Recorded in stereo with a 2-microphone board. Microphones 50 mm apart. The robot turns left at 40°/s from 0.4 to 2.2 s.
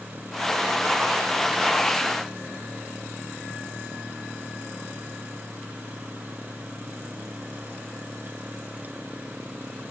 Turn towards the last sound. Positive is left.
No sound to turn to.